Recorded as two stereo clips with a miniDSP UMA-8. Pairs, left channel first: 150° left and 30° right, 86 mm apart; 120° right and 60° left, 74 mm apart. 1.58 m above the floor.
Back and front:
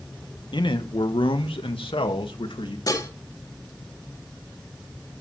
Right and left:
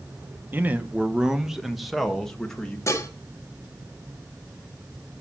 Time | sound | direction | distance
0.5 | a man speaking | 125° left | 1.7 m
2.9 | dishes clattering | 165° right | 2 m